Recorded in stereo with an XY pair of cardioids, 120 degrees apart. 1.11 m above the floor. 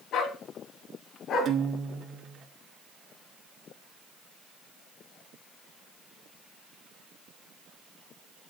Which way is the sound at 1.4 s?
50° right.